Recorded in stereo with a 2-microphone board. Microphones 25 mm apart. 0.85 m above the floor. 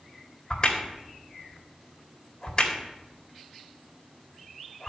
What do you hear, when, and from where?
0.5 s a crack: 30° left (ahead or behind), 1.8 m